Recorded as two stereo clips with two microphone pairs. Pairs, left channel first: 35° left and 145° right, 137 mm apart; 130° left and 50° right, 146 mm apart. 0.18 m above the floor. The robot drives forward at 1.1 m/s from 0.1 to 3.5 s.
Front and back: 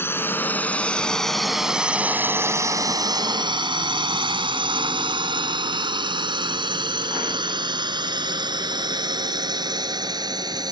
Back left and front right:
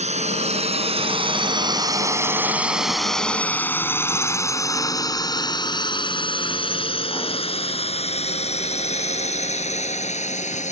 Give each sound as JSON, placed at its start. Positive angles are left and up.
{"t": 0.0, "sound": "a drone", "azimuth_deg": -40}